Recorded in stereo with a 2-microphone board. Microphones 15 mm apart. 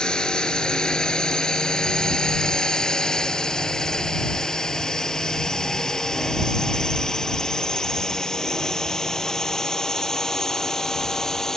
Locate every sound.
0.0 s a drone: 65° left (ahead or behind); by 11.6 s 35° left (ahead or behind)